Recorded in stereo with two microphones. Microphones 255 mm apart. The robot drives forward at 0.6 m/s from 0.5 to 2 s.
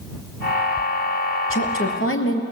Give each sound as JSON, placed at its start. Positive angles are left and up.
{"t": 1.5, "sound": "a woman speaking", "side_deg": 55, "distance_m": 2.5}